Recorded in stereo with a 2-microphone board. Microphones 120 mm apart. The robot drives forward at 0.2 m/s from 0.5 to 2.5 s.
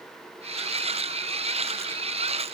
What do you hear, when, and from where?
Only background noise.